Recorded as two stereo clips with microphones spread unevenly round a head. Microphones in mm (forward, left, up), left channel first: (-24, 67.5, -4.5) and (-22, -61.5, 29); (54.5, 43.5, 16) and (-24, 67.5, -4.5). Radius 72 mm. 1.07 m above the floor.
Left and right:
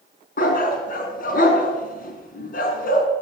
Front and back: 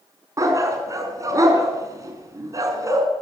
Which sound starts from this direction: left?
A dog barking, at 0.4 s.